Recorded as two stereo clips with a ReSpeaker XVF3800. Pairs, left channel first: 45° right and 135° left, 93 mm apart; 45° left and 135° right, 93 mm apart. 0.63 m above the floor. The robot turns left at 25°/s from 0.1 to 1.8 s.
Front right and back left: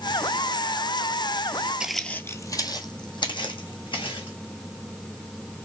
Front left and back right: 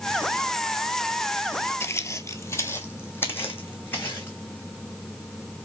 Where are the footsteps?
70° left, 0.6 m; by 4.4 s 25° right, 2.5 m.